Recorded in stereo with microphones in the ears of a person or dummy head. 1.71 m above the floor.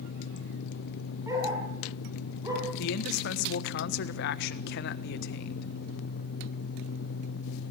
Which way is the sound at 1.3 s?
20° right (ahead or behind).